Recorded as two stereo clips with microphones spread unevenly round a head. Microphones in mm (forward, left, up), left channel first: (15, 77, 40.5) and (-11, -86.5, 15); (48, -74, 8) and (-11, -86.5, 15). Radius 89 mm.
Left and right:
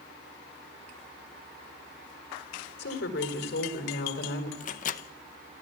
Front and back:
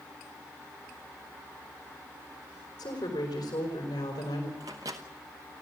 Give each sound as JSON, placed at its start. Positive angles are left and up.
{"t": 2.8, "sound": "a woman speaking", "azimuth_deg": 50, "distance_m": 4.5}
{"t": 4.6, "sound": "a microwave", "azimuth_deg": 130, "distance_m": 0.8}